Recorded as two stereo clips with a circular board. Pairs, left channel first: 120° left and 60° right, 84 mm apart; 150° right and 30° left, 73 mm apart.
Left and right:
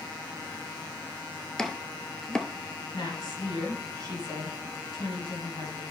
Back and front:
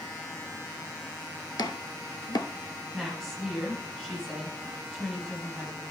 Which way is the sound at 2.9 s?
125° left.